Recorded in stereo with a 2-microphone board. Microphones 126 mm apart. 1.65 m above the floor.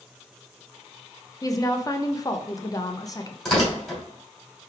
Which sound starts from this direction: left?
A woman speaking, at 1.4 s.